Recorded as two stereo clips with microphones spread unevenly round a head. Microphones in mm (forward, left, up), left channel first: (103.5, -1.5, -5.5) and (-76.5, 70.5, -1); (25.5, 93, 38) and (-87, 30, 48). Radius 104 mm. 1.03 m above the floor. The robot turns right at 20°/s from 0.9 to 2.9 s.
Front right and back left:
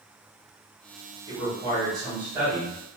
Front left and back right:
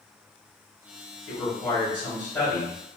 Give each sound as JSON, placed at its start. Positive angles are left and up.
{"t": 1.3, "sound": "a man speaking", "azimuth_deg": 65, "distance_m": 1.4}